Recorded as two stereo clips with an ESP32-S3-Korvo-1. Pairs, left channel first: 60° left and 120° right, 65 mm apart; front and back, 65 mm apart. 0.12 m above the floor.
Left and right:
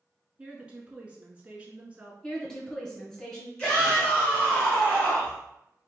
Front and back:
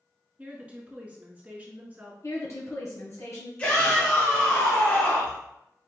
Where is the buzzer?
No buzzer in this recording.